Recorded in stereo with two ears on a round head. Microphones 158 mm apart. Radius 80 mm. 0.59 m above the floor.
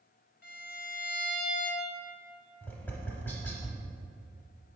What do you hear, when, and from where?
0.4 s a violin: 55° left (ahead or behind), 1.5 m
2.6 s tapping: 10° left (ahead or behind), 0.7 m